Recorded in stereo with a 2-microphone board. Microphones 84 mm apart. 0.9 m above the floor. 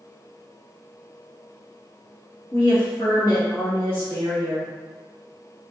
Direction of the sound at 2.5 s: 60° left (ahead or behind).